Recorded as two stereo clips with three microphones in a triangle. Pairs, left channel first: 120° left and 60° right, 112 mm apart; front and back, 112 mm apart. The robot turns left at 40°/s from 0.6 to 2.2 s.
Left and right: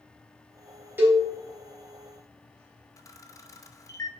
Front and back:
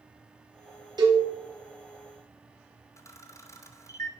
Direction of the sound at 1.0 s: 130° right.